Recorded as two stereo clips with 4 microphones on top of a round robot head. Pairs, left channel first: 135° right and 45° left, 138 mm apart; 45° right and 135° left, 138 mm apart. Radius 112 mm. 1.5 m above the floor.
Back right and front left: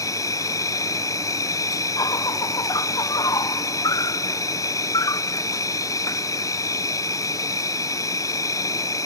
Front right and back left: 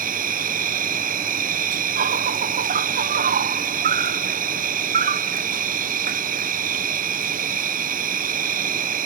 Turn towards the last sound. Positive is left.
turn(degrees=155)